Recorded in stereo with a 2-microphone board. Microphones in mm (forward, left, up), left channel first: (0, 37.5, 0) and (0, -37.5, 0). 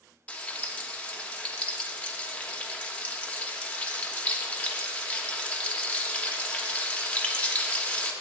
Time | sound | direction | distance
0.3 | frying | 15° left (ahead or behind) | 1.0 m